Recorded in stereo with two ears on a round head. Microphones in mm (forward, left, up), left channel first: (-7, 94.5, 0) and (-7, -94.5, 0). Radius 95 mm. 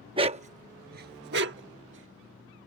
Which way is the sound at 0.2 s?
25° right (ahead or behind).